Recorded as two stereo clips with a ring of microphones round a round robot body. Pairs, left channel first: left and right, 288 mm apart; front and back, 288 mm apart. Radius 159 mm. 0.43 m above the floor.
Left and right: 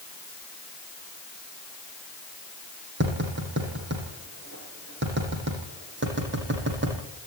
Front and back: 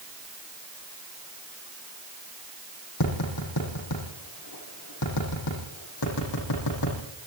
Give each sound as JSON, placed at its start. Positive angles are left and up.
{"t": 3.0, "sound": "tapping", "azimuth_deg": -40, "distance_m": 8.5}